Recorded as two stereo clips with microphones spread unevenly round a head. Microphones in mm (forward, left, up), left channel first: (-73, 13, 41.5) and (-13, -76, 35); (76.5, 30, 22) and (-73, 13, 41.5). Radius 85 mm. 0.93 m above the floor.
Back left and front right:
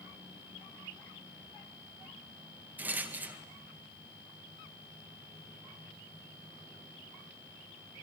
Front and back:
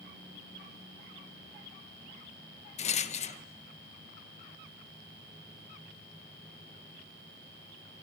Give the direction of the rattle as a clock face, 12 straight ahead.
12 o'clock.